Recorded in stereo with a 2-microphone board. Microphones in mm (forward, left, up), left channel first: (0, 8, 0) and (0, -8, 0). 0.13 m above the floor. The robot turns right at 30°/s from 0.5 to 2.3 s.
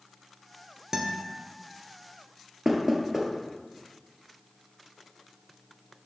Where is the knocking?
30° right (ahead or behind), 1.5 m.